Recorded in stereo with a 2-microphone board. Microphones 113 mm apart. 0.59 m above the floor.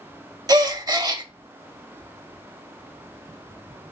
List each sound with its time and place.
0.5 s a gasp: 35° right (ahead or behind), 0.6 m